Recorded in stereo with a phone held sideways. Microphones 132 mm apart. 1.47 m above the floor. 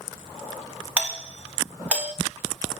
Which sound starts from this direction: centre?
A doorbell, at 1.0 s.